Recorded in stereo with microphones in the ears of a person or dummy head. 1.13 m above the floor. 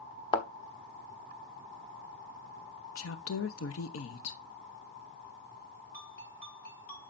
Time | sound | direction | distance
0.3 | a thud | 35° left (ahead or behind) | 0.9 m
3.0 | a woman speaking | 80° left | 0.9 m
5.9 | a ringtone | 60° left (ahead or behind) | 6 m